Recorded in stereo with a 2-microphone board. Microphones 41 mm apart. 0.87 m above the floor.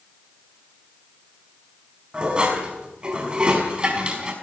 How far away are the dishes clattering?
About 5 m.